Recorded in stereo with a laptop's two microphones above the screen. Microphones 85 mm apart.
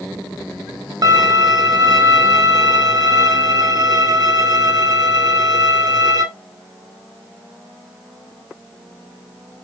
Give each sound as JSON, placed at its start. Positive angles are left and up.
{"t": 1.0, "sound": "a violin", "side_deg": -45, "distance_m": 2.5}